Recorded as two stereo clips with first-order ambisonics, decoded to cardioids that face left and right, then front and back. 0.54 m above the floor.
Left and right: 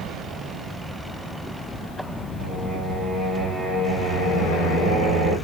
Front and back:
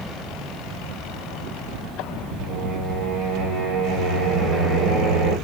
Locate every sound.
2.4 s singing: 170° right, 2.5 m